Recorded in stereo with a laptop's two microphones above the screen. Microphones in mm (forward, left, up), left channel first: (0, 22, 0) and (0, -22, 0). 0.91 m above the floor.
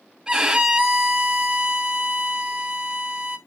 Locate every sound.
0.3 s a violin: 15° right (ahead or behind), 1.4 m